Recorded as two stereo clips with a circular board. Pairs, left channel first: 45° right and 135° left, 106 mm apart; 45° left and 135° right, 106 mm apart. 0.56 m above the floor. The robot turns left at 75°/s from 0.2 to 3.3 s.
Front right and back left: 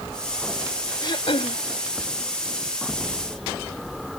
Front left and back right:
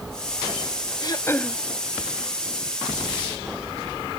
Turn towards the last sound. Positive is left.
turn(degrees=-170)